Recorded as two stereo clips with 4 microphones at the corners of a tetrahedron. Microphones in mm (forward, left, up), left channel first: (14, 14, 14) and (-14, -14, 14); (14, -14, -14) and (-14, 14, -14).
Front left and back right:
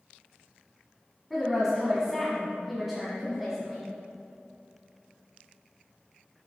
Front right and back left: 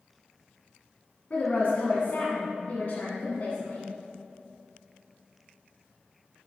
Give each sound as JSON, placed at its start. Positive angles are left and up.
{"t": 1.3, "sound": "a woman speaking", "azimuth_deg": -55, "distance_m": 1.8}